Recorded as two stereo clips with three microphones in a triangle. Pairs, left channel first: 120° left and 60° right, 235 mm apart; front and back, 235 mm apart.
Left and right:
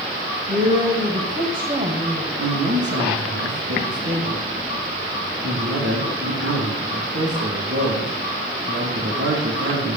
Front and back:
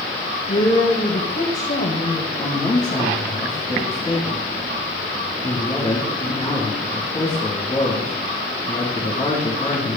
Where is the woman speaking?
15° right, 2.5 m.